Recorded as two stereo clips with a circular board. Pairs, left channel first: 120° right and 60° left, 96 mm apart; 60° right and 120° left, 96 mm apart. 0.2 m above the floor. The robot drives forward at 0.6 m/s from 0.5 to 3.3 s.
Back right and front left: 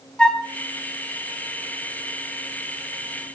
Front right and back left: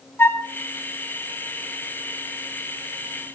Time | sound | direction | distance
0.2 | a flute | 55° right | 1.2 m